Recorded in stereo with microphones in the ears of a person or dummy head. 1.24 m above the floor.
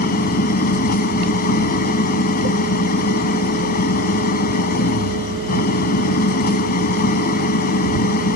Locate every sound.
0.0 s an engine running: 50° left (ahead or behind)